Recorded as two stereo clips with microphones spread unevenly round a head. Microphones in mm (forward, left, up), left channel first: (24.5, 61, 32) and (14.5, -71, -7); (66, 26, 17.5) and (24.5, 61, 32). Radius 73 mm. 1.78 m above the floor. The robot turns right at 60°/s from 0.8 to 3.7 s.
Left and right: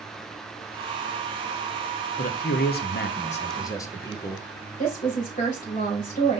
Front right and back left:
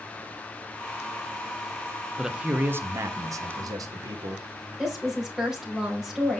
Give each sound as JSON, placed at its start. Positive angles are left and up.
{"t": 2.2, "sound": "a man speaking", "azimuth_deg": 60, "distance_m": 1.0}
{"t": 4.8, "sound": "a woman speaking", "azimuth_deg": 60, "distance_m": 4.0}